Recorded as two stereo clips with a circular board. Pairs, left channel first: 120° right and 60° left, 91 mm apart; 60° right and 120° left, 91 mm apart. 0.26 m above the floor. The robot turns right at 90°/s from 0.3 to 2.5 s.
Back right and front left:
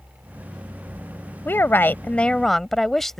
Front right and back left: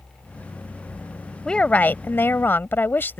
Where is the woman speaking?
130° right; by 3.2 s 35° right.